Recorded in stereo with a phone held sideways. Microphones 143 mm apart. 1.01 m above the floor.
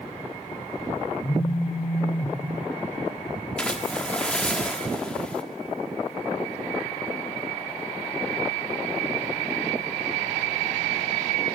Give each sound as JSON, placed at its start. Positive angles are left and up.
{"t": 1.2, "sound": "a phone buzzing", "side_deg": 65, "distance_m": 3.0}
{"t": 3.6, "sound": "a splash", "side_deg": 5, "distance_m": 1.3}